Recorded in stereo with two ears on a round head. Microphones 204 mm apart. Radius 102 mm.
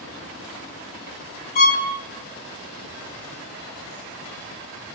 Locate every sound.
1.6 s a violin: 40° left (ahead or behind), 0.7 m